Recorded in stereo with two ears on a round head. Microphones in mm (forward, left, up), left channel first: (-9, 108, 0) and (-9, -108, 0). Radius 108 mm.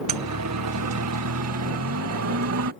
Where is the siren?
80° right; by 2.7 s 65° right (ahead or behind).